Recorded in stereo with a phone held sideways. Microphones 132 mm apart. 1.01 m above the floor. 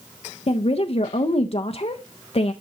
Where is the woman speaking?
50° left (ahead or behind), 0.5 m.